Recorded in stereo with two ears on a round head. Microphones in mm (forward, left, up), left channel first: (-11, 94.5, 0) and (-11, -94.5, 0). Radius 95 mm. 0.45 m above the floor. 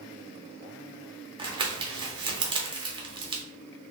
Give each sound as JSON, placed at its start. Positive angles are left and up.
{"t": 1.4, "sound": "crumpling", "side_deg": -25, "distance_m": 0.9}